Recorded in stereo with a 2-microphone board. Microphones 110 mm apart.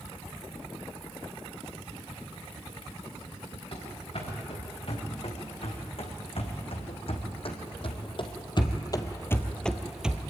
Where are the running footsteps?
60° left (ahead or behind), 6 m; by 10.2 s 10° right (ahead or behind), 1.4 m.